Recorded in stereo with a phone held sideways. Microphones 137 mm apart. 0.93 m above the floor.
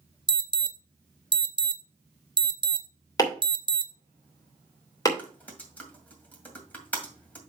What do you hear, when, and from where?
0.3 s an alarm: 35° right (ahead or behind), 0.6 m
3.2 s chopping: 25° left (ahead or behind), 2.5 m
5.2 s typing on a keyboard: 10° left (ahead or behind), 2 m